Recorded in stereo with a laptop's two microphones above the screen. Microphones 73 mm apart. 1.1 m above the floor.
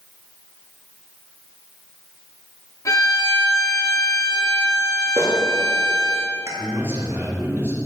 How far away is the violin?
About 2.5 m.